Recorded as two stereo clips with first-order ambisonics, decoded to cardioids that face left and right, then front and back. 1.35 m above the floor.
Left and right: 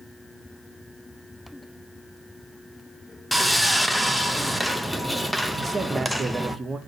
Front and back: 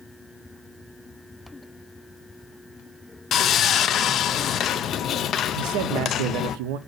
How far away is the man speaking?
About 0.6 m.